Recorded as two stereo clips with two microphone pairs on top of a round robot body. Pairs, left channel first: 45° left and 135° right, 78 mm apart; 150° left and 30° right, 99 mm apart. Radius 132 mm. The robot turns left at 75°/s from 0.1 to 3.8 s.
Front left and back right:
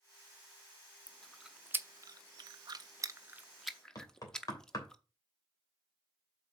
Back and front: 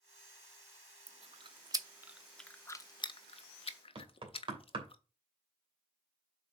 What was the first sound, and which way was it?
Chewing, 20° right.